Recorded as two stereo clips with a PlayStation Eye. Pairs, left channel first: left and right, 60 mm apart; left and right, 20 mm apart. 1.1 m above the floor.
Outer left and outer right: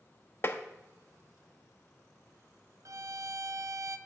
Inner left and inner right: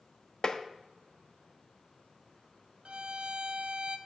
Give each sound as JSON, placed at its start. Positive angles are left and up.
{"t": 0.4, "sound": "tapping", "side_deg": 40, "distance_m": 0.7}
{"t": 2.9, "sound": "a violin", "side_deg": -60, "distance_m": 0.7}